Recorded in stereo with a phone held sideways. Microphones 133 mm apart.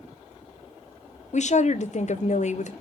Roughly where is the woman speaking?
Left.